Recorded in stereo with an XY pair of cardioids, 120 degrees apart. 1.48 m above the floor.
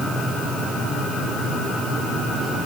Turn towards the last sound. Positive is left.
No sound to turn to.